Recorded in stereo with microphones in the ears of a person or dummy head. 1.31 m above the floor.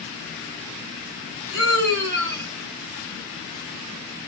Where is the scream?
65° right (ahead or behind), 3 m.